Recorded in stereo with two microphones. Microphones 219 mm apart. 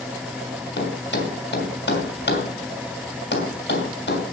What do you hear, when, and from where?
0.8 s a thud: 55° left (ahead or behind), 3 m